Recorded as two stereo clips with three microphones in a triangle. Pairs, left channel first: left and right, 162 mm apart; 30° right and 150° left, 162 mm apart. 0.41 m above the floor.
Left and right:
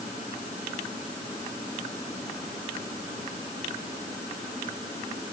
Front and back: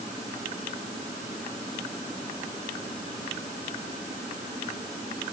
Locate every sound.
Only background noise.